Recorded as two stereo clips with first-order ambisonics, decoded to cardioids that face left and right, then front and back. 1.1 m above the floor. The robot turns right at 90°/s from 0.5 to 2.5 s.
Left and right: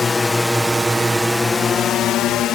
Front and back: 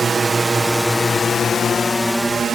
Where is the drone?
135° left; by 2.5 s 120° left.